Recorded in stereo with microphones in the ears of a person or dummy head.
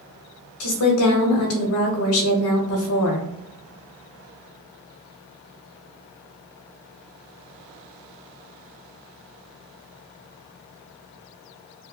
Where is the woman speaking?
80° left, 1.1 m.